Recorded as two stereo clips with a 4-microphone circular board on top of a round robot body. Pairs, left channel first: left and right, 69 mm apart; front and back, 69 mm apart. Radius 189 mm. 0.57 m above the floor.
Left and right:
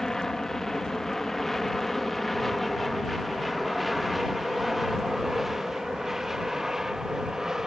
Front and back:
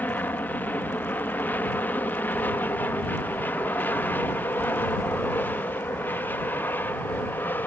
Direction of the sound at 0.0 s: 15° left.